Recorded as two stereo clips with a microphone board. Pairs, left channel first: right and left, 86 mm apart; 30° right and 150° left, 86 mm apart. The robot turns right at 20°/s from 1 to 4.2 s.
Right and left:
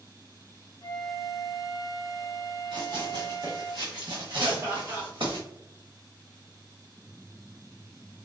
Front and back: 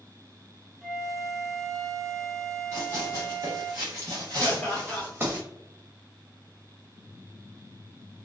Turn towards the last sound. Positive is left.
turn(degrees=50)